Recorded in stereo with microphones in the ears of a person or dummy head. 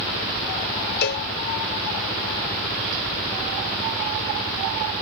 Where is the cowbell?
60° left (ahead or behind).